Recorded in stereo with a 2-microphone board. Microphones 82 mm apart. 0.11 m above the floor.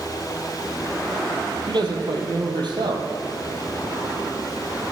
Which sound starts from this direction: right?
A man speaking, at 1.7 s.